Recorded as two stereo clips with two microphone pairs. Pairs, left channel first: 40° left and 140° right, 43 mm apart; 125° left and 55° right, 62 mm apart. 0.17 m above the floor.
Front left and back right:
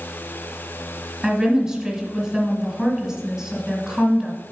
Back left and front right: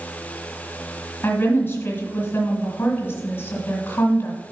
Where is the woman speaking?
155° left, 2 m.